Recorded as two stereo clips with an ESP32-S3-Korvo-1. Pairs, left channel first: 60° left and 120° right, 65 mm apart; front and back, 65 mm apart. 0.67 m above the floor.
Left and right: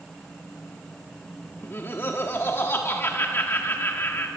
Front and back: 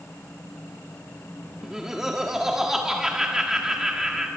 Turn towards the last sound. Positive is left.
turn(degrees=100)